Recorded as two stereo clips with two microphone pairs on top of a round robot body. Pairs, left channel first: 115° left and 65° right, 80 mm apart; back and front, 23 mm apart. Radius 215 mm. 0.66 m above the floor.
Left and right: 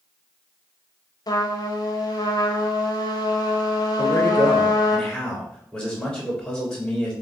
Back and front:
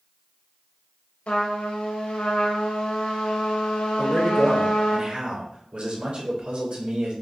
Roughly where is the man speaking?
Ahead left.